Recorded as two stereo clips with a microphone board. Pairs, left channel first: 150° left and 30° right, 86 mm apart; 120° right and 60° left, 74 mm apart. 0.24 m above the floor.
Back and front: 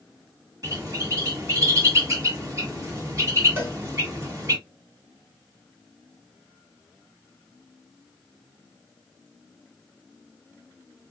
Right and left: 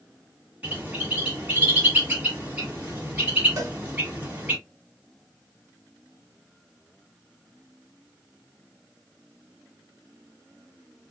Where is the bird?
Straight ahead, 1.8 m.